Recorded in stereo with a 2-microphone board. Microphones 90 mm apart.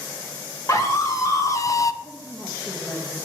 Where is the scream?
35° left (ahead or behind), 2 m; by 1.9 s 40° left (ahead or behind), 0.5 m.